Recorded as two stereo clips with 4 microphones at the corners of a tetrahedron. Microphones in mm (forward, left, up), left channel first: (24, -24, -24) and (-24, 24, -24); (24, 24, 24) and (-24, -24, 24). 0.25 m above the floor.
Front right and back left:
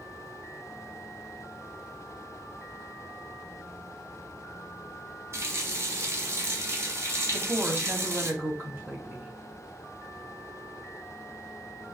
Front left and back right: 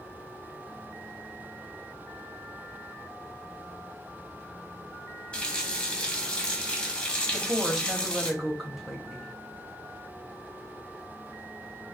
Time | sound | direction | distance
5.3 | a running tap | 115° left | 1.1 m
7.3 | a woman speaking | 135° left | 1.3 m